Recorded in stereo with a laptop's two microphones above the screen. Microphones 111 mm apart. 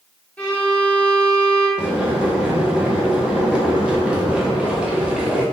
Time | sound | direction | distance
0.4 | a violin | 10° left (ahead or behind) | 1.2 m
1.8 | boiling | 10° right (ahead or behind) | 0.7 m